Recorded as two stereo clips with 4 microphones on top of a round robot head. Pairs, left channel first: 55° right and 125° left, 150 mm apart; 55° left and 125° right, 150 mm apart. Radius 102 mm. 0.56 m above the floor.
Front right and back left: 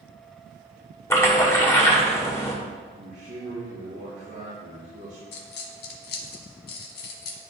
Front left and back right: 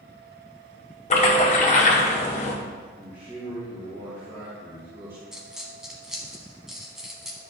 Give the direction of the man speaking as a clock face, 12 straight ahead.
7 o'clock.